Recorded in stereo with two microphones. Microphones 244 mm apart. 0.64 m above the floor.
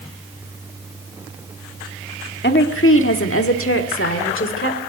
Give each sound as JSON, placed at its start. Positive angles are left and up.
{"t": 2.4, "sound": "a woman speaking", "side_deg": 45, "distance_m": 1.2}